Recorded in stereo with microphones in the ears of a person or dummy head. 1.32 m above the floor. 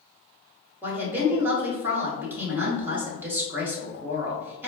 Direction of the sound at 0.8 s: 10° right (ahead or behind).